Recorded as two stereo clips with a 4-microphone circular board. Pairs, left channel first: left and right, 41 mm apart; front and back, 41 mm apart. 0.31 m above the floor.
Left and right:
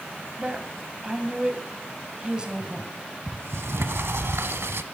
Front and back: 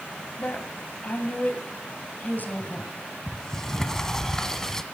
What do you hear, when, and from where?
0.4 s a woman speaking: 25° right, 2 m
3.3 s a sliding door: 80° right, 0.7 m